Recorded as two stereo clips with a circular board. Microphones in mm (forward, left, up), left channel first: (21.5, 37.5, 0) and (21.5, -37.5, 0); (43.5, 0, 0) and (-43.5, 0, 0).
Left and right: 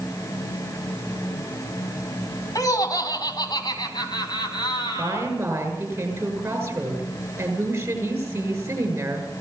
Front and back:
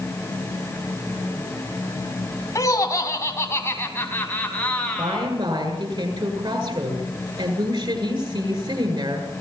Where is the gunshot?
I don't hear a gunshot.